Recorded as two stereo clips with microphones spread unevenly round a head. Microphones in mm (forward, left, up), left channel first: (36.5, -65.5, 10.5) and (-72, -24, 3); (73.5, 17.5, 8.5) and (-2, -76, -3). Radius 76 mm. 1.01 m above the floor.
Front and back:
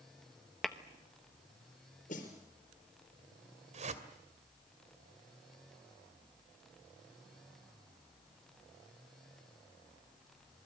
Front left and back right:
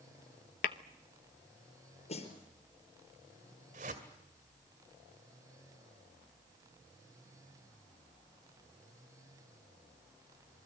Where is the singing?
I don't hear singing.